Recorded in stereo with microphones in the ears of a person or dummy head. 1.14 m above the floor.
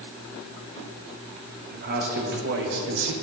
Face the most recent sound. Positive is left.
turn(degrees=-70)  # may be behind; listen again after turning